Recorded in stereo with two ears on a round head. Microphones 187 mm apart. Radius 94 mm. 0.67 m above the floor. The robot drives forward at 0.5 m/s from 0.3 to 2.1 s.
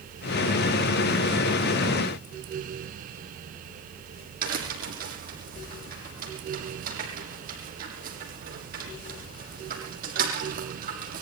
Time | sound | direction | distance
4.4 | a crack | 50° right (ahead or behind) | 6.5 m